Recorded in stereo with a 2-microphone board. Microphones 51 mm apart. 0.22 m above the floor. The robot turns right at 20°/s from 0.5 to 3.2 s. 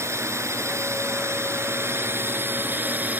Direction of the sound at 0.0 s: 95° right.